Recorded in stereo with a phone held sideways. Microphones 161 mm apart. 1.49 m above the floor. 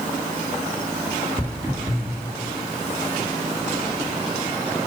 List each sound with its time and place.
1.4 s footsteps: 20° right (ahead or behind), 1.6 m